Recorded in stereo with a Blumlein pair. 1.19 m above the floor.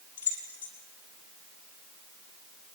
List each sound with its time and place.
0.2 s keys jangling: 65° left, 5.5 m